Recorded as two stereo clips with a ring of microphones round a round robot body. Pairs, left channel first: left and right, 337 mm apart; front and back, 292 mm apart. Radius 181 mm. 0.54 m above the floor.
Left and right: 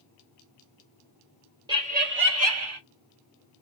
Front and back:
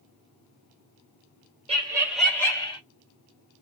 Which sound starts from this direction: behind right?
Laughter, at 1.7 s.